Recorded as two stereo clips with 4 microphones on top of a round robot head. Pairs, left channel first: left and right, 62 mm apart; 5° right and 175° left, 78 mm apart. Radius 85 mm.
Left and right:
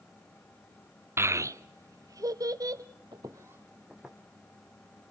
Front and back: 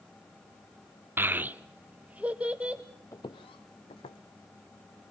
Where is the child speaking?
130° right, 0.5 m; by 2.8 s 105° right, 1.8 m.